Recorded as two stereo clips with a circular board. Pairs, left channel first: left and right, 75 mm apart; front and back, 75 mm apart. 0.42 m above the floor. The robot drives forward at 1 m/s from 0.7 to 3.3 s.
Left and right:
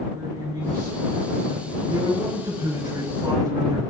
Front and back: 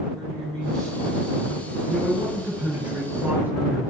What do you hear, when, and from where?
0.1 s a man speaking: 80° right, 5.5 m; by 1.8 s 90° right, 5.5 m
1.9 s a man speaking: 100° right, 5 m; by 3.8 s 115° right, 5.5 m